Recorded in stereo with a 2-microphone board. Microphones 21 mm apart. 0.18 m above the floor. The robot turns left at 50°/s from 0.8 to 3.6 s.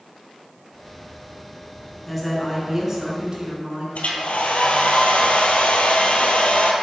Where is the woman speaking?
10° left, 1.6 m; by 3.9 s 70° right, 1.6 m.